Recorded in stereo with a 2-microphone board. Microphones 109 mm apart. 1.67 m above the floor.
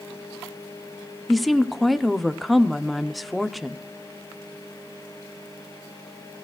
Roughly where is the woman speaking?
Centre.